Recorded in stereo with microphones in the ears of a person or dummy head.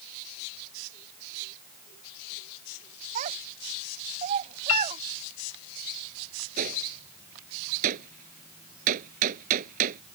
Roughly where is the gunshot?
Right.